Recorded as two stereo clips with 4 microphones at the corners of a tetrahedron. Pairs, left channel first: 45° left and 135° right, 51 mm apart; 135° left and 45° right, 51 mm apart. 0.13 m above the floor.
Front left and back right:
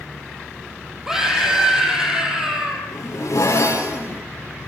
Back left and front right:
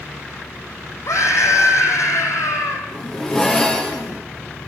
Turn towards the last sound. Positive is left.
turn(degrees=60)